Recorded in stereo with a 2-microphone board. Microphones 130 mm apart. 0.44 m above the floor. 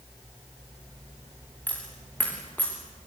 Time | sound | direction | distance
1.7 | a dropped coin | 10° left (ahead or behind) | 8 m